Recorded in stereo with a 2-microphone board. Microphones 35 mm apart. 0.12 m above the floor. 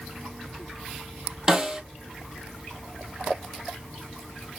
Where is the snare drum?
15° right (ahead or behind), 1.1 m.